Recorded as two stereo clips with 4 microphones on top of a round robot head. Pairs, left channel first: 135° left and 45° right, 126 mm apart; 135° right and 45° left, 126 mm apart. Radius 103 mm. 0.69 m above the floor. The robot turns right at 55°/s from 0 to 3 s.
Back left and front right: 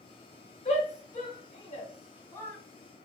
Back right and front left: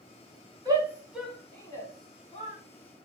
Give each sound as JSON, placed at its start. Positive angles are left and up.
{"t": 0.7, "sound": "a shout", "azimuth_deg": 105, "distance_m": 2.0}